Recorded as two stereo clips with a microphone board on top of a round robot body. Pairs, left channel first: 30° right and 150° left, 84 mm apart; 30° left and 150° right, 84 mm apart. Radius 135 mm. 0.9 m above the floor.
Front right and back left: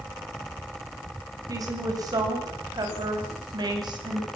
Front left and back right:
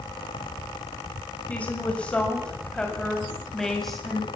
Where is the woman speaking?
105° left, 5.5 m; by 4.3 s 120° left, 6.5 m.